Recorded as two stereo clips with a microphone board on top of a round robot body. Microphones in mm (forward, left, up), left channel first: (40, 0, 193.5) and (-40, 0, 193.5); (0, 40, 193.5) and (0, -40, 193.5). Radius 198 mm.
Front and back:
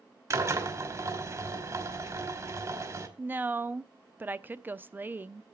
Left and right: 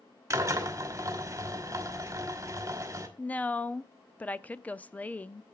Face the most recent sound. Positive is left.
turn(degrees=140)